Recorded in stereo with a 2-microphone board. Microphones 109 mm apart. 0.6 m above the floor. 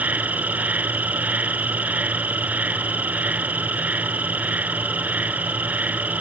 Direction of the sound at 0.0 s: 15° right (ahead or behind).